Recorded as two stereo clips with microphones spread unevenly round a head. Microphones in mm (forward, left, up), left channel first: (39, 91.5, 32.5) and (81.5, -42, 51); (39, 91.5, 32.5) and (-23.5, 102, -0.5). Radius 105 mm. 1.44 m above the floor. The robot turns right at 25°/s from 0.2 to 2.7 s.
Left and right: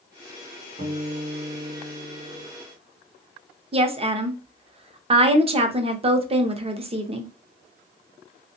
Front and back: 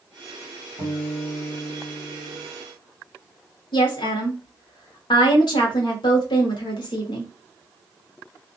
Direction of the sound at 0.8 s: 145° right.